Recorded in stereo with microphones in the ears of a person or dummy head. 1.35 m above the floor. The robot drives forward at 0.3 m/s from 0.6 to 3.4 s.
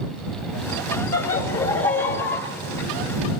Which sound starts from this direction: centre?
Laughter, at 1.1 s.